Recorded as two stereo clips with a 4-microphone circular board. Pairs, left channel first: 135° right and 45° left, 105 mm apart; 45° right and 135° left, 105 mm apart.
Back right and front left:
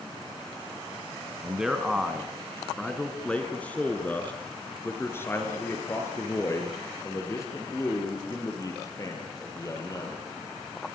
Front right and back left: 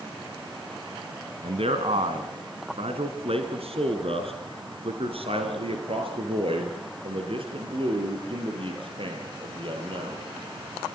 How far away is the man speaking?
About 2 m.